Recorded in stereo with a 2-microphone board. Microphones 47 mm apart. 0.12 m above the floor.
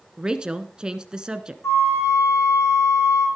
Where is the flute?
70° left (ahead or behind), 5 m.